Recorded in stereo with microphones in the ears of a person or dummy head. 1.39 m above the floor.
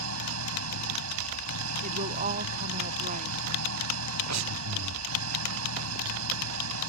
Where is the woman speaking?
35° right (ahead or behind).